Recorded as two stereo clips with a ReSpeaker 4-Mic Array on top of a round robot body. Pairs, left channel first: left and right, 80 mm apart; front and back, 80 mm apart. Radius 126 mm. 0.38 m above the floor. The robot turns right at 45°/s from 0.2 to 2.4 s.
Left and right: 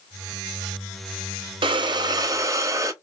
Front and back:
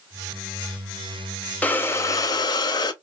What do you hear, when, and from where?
1.6 s breathing: 75° right, 0.6 m; by 2.9 s 40° right, 0.6 m